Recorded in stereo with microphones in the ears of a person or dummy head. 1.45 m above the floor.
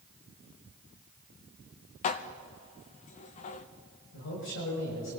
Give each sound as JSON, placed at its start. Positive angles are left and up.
{"t": 2.0, "sound": "dishes clattering", "side_deg": 40, "distance_m": 0.7}
{"t": 4.1, "sound": "a man speaking", "side_deg": 70, "distance_m": 7.0}